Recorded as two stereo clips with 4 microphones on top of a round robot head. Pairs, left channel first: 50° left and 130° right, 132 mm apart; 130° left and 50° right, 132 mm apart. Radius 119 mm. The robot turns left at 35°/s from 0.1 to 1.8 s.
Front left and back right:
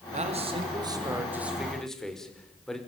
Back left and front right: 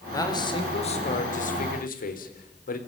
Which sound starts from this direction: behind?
A man speaking, at 0.1 s.